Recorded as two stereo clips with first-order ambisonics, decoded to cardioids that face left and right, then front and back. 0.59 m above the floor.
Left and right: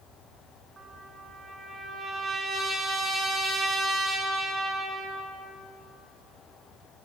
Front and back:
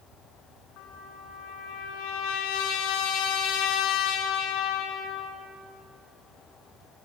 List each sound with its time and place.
0.8 s a trumpet: 20° right, 6 m